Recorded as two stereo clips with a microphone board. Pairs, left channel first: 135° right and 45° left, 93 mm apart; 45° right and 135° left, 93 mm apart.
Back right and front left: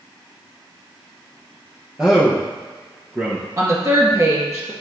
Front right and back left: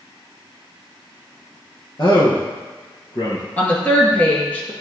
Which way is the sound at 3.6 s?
20° left.